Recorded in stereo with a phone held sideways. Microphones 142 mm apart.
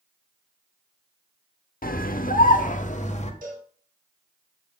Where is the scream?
85° left, 0.9 m; by 3.3 s 55° left (ahead or behind), 1.4 m.